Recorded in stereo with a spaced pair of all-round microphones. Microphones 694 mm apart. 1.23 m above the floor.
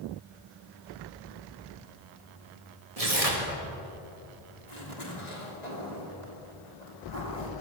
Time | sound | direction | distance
3.0 | tearing paper | 55° right (ahead or behind) | 2.5 m
4.7 | a zipper | 70° left (ahead or behind) | 3 m